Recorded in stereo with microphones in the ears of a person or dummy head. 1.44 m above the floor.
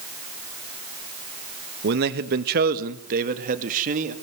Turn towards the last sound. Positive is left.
turn(degrees=-40)  # may be behind; listen again after turning